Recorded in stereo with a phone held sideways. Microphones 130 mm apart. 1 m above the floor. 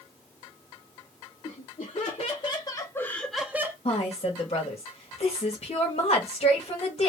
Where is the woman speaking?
55° left (ahead or behind), 1.5 m.